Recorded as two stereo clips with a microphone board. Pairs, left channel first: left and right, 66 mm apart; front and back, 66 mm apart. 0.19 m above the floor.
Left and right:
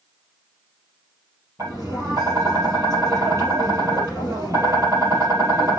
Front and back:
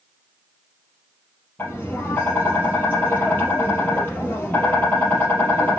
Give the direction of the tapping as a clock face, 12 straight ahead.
2 o'clock.